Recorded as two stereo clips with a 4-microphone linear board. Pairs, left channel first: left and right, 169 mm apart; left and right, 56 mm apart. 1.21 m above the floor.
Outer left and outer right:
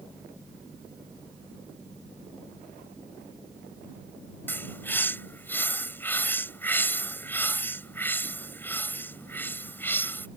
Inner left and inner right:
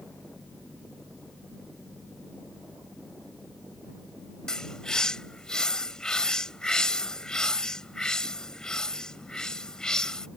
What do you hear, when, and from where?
4.5 s a bird: 10° left (ahead or behind)